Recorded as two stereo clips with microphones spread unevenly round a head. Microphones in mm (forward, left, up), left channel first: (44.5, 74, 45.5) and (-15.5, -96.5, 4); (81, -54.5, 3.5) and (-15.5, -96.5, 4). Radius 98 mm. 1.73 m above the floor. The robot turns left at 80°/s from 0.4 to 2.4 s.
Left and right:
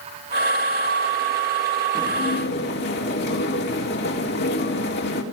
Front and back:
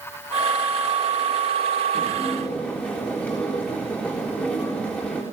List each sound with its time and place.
1.9 s dishes clattering: 145° left, 3.5 m; by 5.2 s 105° left, 3.5 m